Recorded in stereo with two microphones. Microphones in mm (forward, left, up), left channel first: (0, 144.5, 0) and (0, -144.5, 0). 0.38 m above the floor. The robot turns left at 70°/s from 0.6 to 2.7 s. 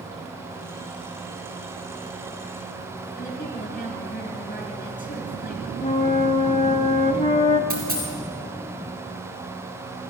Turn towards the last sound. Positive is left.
turn(degrees=-30)  # may be behind; listen again after turning